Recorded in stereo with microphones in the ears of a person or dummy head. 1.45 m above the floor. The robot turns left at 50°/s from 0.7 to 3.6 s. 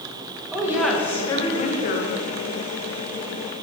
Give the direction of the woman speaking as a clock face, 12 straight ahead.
6 o'clock.